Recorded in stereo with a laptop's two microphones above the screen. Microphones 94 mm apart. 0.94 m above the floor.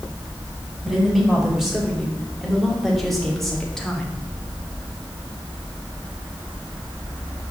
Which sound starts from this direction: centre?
A woman speaking, at 0.8 s.